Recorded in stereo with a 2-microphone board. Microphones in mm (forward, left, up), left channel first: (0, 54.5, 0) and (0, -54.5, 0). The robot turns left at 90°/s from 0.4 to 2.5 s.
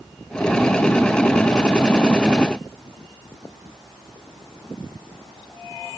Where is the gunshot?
I don't hear a gunshot.